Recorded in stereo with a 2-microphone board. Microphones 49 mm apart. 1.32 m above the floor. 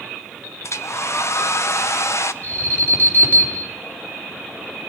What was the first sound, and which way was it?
A hair dryer, 65° left (ahead or behind).